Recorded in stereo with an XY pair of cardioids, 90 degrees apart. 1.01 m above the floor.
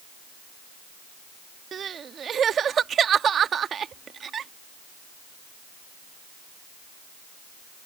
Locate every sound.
1.7 s crying: 60° right